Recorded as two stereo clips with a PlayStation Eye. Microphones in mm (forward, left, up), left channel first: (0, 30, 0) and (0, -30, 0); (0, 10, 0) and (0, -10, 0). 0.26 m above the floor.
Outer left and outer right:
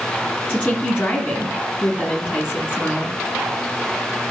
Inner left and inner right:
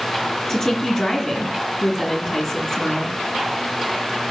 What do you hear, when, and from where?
0.5 s a woman speaking: 20° left (ahead or behind), 2.5 m